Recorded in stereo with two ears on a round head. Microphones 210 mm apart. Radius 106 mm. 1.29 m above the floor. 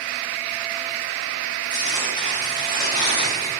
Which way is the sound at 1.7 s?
20° left (ahead or behind).